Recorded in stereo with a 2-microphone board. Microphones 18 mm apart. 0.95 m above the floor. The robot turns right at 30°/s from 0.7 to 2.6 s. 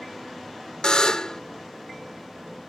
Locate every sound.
0.8 s a buzzer: 50° left (ahead or behind); by 1.4 s 40° left (ahead or behind)